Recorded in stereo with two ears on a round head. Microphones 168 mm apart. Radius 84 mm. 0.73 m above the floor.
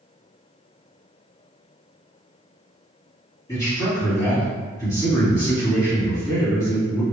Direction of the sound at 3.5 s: 20° left (ahead or behind).